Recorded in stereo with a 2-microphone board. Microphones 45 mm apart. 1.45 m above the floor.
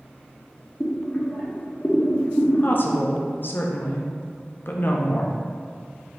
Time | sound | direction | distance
0.8 | boiling | 20° left (ahead or behind) | 0.8 m
2.6 | a woman speaking | 50° left (ahead or behind) | 0.6 m